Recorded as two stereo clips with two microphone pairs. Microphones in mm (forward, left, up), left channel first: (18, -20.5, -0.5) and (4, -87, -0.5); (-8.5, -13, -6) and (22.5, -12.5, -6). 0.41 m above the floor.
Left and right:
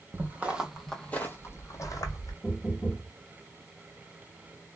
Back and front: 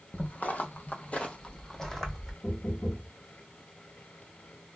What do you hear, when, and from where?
0.1 s footsteps: 155° right, 0.8 m; by 2.3 s 95° left, 1.1 m
2.4 s knocking: 150° left, 1.1 m